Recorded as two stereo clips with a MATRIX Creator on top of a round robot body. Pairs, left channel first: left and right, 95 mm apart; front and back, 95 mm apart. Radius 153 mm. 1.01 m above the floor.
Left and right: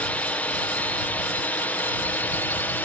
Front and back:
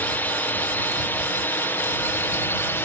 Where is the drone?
40° left.